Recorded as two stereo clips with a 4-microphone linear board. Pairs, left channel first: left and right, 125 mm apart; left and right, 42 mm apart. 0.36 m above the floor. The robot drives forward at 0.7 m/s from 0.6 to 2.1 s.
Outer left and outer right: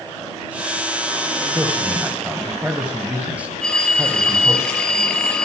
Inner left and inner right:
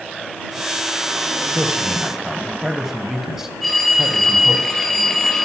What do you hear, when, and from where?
1.5 s a man speaking: 15° right (ahead or behind), 1.5 m; by 4.6 s 10° right (ahead or behind), 1.9 m
3.6 s a phone ringing: 5° left (ahead or behind), 1.5 m